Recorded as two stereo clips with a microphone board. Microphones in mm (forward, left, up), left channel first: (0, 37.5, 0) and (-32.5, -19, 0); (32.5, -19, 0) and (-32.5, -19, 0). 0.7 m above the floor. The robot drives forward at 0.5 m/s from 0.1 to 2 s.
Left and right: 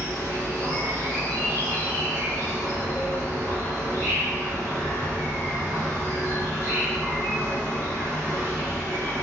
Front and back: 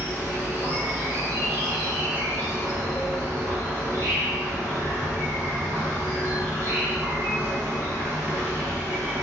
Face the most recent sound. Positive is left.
turn(degrees=-160)